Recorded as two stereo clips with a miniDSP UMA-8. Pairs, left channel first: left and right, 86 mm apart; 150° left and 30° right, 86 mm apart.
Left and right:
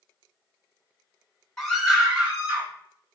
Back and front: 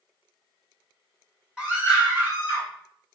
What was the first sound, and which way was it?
A scream, 25° left.